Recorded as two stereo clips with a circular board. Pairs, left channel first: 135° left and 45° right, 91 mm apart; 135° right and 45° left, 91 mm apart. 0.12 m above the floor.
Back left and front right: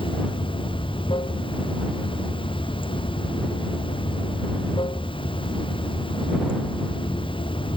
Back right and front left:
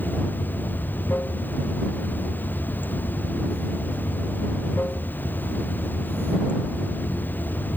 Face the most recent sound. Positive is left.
turn(degrees=155)